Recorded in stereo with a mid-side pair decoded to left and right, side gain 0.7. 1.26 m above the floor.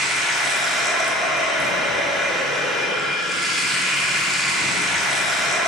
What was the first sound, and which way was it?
Running water, 5° left.